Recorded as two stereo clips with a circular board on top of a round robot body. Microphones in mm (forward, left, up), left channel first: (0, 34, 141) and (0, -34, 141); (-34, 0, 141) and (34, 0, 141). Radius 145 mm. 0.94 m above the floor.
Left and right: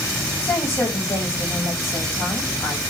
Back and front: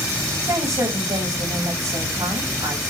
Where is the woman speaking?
30° left, 6 m.